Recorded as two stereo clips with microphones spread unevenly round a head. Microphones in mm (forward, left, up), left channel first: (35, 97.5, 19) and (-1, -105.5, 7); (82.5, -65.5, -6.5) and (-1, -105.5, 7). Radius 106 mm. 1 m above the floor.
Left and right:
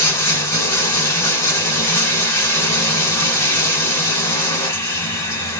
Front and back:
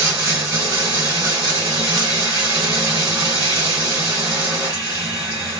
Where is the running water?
155° left, 1.0 m.